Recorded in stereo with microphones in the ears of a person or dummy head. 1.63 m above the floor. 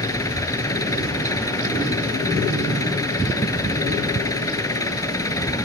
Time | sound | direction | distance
0.0 | an engine running | 15° left (ahead or behind) | ?